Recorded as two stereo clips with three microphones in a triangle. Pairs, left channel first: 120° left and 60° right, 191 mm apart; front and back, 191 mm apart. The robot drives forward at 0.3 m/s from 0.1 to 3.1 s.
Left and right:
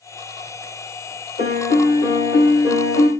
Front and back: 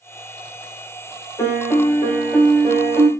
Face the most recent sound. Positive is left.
turn(degrees=90)